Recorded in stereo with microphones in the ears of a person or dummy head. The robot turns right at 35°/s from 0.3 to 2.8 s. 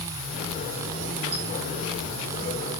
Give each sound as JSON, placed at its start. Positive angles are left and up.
{"t": 1.3, "sound": "a squeak", "side_deg": -45, "distance_m": 4.5}